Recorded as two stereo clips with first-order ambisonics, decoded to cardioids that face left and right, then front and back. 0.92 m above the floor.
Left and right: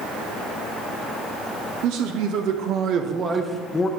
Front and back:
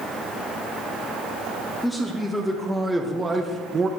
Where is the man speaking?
85° right, 1.3 m; by 3.9 s 135° left, 0.7 m.